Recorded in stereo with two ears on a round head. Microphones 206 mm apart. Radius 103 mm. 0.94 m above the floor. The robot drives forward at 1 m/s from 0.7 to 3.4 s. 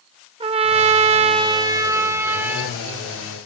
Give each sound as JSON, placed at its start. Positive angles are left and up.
{"t": 0.4, "sound": "a trumpet", "side_deg": -20, "distance_m": 0.7}